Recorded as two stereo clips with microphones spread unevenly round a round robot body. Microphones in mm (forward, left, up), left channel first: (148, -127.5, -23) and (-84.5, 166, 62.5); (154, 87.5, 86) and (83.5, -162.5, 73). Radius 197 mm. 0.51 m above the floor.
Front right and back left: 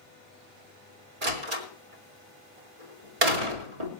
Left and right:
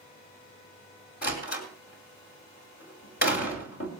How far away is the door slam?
About 2.5 m.